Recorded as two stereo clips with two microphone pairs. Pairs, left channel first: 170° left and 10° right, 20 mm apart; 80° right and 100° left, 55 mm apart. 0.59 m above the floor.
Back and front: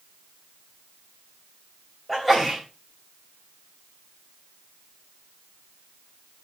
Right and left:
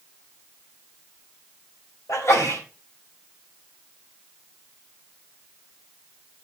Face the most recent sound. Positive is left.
turn(degrees=-105)